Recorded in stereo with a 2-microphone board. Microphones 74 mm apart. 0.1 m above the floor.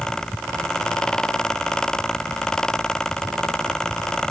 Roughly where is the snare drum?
I don't hear a snare drum.